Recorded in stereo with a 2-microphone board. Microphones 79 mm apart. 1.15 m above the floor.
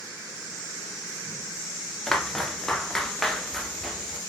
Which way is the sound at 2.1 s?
5° left (ahead or behind).